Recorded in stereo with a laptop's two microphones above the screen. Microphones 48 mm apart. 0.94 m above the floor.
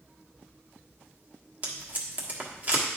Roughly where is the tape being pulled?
Right.